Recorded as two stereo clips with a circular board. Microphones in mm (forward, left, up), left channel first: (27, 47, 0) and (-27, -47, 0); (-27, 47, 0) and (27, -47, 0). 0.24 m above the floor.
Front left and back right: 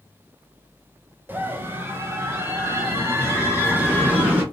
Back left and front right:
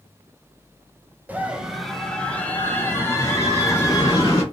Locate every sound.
1.3 s a scream: 100° right, 1.0 m; by 4.4 s 170° left, 2.5 m